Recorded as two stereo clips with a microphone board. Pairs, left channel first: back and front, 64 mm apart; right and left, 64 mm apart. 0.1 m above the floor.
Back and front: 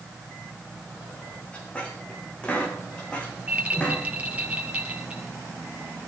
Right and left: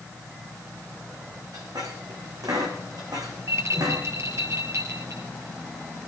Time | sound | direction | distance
1.5 | a squeak | 105° left | 4 m
3.5 | a rattle | 60° left | 2 m